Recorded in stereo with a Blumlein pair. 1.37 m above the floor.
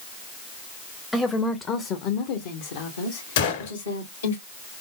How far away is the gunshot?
About 2.0 m.